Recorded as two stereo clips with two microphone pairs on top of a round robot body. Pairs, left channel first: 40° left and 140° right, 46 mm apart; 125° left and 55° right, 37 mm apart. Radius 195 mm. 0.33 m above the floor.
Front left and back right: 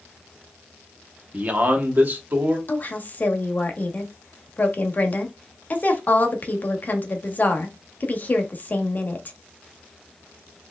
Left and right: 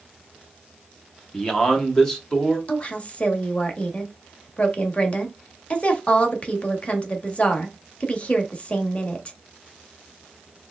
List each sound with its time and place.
1.3 s a man speaking: 165° right, 1.4 m; by 2.6 s 160° right, 1.9 m
2.7 s a woman speaking: 80° left, 1.2 m